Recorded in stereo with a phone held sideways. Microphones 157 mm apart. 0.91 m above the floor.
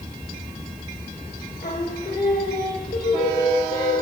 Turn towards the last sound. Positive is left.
turn(degrees=70)  # may be behind; listen again after turning